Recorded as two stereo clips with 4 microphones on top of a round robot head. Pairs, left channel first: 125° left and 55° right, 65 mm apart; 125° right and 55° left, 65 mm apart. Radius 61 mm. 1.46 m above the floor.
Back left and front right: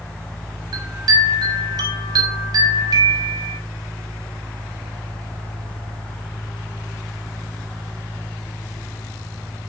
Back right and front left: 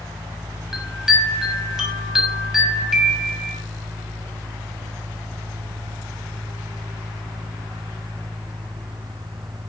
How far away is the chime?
About 6 m.